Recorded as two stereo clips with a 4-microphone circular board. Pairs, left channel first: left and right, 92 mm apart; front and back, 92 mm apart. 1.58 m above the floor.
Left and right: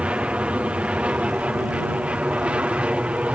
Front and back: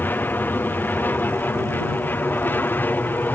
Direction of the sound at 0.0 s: 30° right.